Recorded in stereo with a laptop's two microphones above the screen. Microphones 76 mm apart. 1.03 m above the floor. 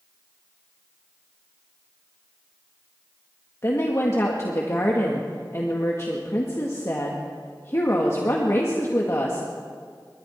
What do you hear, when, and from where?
3.6 s a woman speaking: 40° left (ahead or behind), 1.8 m